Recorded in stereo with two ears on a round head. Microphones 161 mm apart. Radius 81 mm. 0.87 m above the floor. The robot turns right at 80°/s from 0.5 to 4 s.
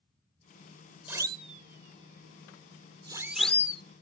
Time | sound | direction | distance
1.1 | a siren | 10° right (ahead or behind) | ?